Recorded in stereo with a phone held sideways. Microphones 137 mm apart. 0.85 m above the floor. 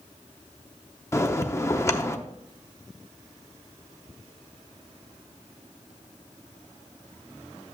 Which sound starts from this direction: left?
A bell, at 1.1 s.